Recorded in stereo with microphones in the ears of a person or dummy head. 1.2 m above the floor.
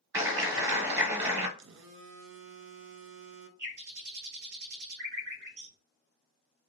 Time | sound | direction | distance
0.1 | a clap | 20° right (ahead or behind) | 1.0 m
1.6 | a phone buzzing | 55° right (ahead or behind) | 0.6 m
3.6 | a bird | 45° right (ahead or behind) | 1.2 m